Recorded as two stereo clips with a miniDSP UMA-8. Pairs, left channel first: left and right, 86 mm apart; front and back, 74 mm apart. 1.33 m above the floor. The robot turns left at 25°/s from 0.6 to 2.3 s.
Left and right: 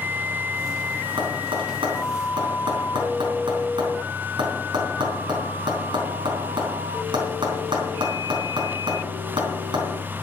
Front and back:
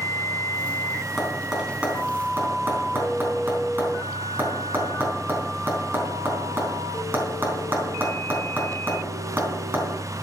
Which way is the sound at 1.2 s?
85° right.